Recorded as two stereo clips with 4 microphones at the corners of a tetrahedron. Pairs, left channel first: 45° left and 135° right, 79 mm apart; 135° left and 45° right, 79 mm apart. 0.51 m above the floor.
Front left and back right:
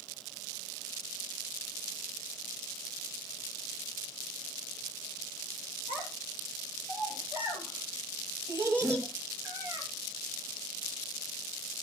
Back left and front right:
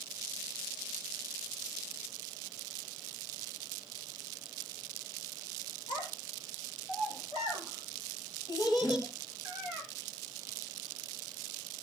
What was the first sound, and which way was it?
A child speaking, 155° left.